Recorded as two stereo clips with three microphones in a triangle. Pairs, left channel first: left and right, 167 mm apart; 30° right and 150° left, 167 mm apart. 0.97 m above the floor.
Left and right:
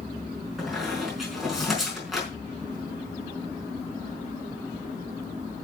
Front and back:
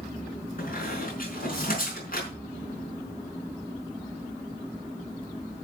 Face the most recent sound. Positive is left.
turn(degrees=0)